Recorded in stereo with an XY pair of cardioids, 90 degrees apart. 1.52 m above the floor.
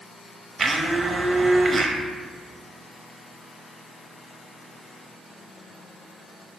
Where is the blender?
25° right, 0.6 m.